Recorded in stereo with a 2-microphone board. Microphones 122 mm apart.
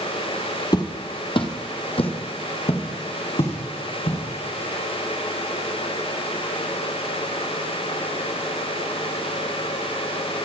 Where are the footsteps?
35° left (ahead or behind), 1.3 m; by 4.2 s 50° left (ahead or behind), 4 m.